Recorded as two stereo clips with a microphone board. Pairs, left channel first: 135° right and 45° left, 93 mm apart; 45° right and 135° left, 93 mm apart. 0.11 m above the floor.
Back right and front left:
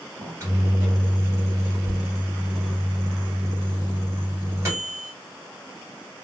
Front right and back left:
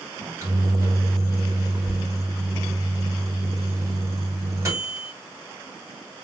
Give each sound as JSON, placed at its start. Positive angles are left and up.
{"t": 0.2, "sound": "a microwave", "azimuth_deg": 90, "distance_m": 1.7}